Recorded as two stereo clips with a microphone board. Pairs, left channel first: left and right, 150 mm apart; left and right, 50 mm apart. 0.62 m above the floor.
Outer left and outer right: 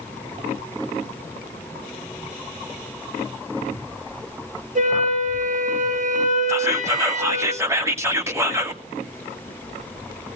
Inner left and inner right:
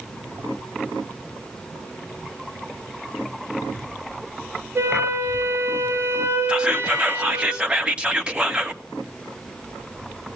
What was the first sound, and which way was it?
A flute, 55° right (ahead or behind).